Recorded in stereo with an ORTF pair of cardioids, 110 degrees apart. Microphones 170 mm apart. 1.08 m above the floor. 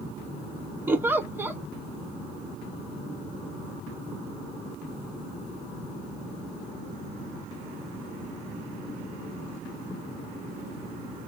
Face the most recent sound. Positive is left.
turn(degrees=-10)